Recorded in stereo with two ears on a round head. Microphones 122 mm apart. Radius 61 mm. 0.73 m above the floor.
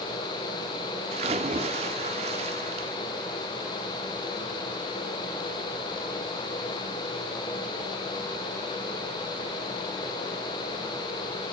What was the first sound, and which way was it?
A splash, 50° right (ahead or behind).